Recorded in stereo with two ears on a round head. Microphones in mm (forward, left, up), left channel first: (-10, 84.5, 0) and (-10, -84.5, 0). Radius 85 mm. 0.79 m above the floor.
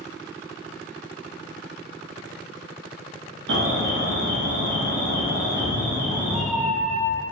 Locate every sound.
3.5 s an alarm: 65° right (ahead or behind), 0.9 m
5.4 s a cat meowing: 5° right (ahead or behind), 0.5 m